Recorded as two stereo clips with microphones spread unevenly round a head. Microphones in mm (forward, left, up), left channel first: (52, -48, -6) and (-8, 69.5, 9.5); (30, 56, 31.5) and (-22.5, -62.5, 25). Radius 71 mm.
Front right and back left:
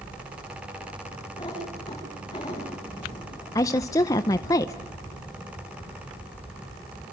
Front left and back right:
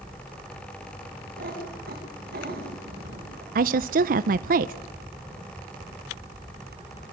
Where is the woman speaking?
130° right, 0.6 m.